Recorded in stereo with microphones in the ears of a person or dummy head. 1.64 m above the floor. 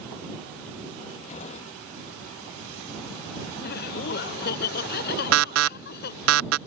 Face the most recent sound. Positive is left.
turn(degrees=-80)